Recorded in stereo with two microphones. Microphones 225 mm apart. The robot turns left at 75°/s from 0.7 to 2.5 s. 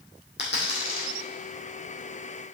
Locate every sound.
0.4 s a dropped coin: 55° left (ahead or behind), 3 m; by 1.1 s 85° left, 3 m